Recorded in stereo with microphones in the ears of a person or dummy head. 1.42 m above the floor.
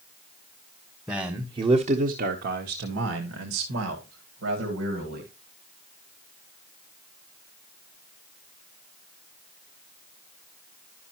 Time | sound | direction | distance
1.1 | a man speaking | 5° right (ahead or behind) | 1.2 m